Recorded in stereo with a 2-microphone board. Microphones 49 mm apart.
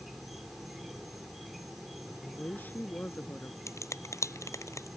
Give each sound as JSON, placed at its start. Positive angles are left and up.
{"t": 0.0, "sound": "an insect", "side_deg": -5}
{"t": 2.2, "sound": "a woman speaking", "side_deg": 40}
{"t": 3.7, "sound": "a finger snap", "side_deg": 85}